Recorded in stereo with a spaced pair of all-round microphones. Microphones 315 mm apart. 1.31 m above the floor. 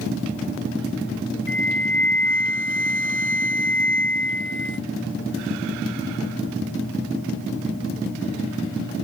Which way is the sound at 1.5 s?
40° left (ahead or behind).